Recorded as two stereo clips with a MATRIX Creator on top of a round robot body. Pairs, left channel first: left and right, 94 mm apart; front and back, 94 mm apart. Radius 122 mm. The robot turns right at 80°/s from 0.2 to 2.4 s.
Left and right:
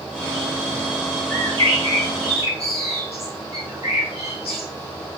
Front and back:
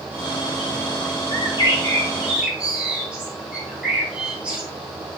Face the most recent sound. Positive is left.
turn(degrees=100)